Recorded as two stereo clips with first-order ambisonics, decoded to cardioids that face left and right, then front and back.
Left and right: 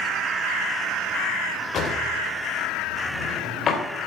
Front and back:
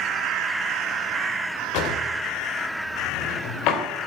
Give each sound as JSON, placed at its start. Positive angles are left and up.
{"t": 1.7, "sound": "a drawer", "azimuth_deg": 30, "distance_m": 2.0}